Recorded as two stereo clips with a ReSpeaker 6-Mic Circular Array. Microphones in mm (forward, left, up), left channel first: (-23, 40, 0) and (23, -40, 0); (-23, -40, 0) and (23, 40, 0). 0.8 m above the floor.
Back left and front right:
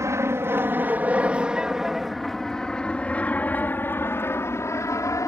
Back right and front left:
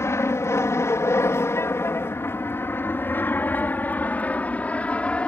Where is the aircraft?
85° right; by 5.3 s 165° left.